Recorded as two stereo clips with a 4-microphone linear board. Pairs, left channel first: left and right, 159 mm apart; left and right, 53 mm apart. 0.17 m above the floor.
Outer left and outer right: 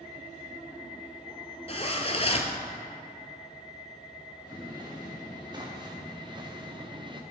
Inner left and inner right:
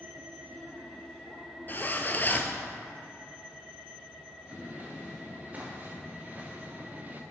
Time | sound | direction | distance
1.7 | a zipper | 40° left (ahead or behind) | 0.7 m
4.5 | footsteps | 25° right (ahead or behind) | 3.5 m